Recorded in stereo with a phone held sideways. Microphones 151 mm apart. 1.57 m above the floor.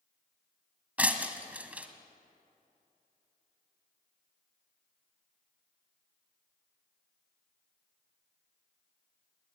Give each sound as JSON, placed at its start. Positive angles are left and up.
{"t": 1.0, "sound": "breaking glass", "side_deg": -10, "distance_m": 1.7}